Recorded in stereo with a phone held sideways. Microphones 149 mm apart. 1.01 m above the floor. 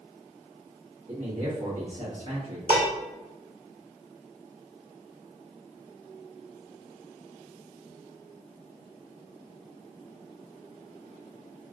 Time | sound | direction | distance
1.1 | a man speaking | 60° right (ahead or behind) | 1.7 m
2.7 | dishes clattering | 85° right | 1.9 m